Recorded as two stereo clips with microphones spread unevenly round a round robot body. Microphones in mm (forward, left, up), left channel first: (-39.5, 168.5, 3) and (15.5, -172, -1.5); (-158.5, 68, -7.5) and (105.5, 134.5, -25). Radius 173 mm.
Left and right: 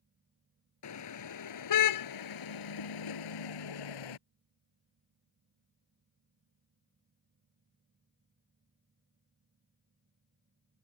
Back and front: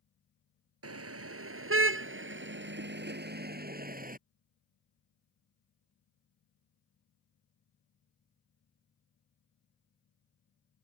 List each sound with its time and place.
0.8 s a car horn: 50° left; by 4.2 s 75° left